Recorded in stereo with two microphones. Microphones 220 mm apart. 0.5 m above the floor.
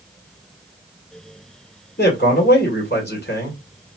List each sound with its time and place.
2.0 s a man speaking: 45° left (ahead or behind), 1.7 m